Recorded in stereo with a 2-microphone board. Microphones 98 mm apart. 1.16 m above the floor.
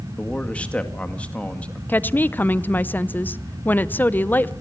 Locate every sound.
0.2 s a man speaking: 10° left (ahead or behind), 2 m
1.9 s a woman speaking: 20° left (ahead or behind), 0.7 m